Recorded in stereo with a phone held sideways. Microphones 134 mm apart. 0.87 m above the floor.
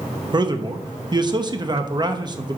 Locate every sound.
0.3 s a man speaking: 30° right (ahead or behind), 0.9 m